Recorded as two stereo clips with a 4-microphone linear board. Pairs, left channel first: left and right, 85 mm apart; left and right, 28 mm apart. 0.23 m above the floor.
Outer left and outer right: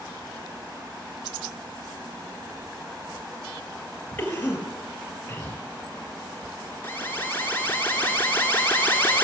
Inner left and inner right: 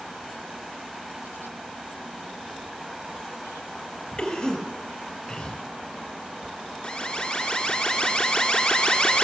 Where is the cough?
20° left (ahead or behind), 5 m.